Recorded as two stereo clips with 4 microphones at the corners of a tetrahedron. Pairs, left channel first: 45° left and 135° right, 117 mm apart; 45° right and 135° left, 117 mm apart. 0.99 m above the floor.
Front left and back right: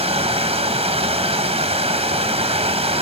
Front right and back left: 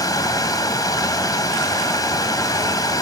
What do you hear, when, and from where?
0.0 s running water: 100° right, 1.2 m